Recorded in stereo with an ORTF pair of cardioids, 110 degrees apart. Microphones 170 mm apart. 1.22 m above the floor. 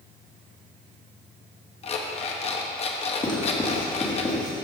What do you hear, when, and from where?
1.8 s an alarm clock: 40° left, 0.9 m
3.2 s writing: 25° left, 2 m